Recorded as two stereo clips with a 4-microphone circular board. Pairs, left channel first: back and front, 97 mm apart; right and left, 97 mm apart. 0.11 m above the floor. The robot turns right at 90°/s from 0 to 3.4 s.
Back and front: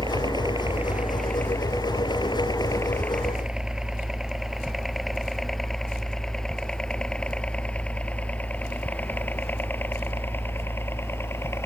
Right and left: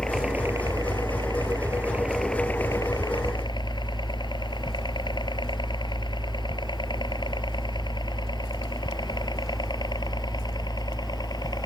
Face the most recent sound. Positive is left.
turn(degrees=-120)